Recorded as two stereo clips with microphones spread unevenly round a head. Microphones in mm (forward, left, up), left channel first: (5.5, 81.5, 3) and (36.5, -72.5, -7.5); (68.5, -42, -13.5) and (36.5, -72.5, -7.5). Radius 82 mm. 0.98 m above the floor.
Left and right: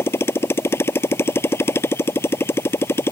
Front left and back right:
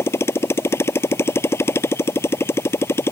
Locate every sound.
0.0 s a motorcycle: 25° left